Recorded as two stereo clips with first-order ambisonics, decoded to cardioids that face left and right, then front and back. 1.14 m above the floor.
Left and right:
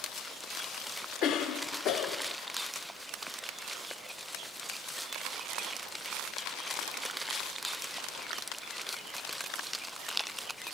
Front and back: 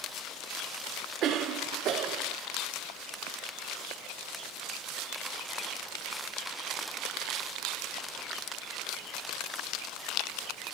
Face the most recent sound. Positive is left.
turn(degrees=135)